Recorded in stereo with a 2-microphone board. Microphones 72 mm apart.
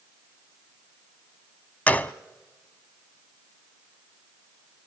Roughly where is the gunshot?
Left.